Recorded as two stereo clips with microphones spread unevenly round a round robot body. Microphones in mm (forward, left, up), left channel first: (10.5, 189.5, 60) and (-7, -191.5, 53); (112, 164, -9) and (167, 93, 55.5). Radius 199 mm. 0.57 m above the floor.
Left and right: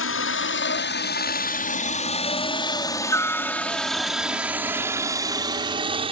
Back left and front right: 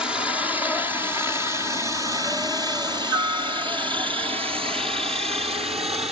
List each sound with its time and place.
0.0 s a helicopter: 90° left; by 6.1 s 20° right